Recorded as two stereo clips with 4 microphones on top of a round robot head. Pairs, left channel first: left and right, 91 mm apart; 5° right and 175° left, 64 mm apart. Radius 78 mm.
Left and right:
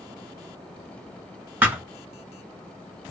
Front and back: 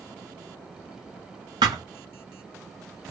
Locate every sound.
1.6 s a thud: 160° right, 0.9 m